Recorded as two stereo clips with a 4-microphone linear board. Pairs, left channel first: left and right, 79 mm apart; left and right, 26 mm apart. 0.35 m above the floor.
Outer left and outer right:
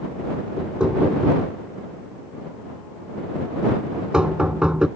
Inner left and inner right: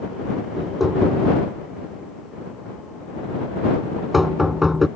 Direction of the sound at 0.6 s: 10° right (ahead or behind).